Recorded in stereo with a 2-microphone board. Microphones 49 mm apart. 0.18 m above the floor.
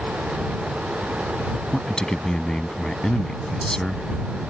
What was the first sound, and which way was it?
A man speaking, 15° left (ahead or behind).